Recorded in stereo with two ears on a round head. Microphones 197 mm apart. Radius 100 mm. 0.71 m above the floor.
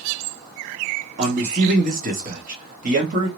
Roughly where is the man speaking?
Right.